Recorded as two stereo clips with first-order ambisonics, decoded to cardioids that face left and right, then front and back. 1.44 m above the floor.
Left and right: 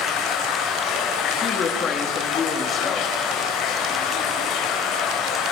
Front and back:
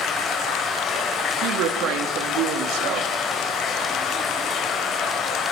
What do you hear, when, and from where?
0.0 s running water: 50° left, 6.5 m
1.4 s a woman speaking: 155° left, 2.5 m